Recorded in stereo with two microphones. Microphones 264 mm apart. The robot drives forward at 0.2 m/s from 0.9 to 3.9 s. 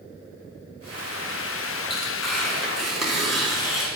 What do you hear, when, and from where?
1.9 s tearing paper: centre (ahead or behind), 5 m